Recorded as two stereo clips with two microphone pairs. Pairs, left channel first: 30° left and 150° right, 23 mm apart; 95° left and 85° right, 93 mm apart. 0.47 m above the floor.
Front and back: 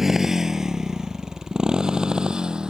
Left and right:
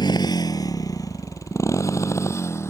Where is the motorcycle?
135° left; by 2.7 s 155° left.